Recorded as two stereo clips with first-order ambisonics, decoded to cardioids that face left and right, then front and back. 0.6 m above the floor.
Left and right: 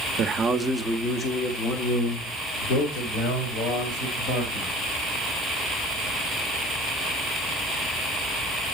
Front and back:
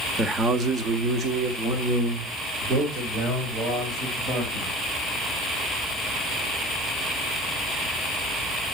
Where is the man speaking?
110° right, 0.6 m; by 4.7 s 120° left, 3 m.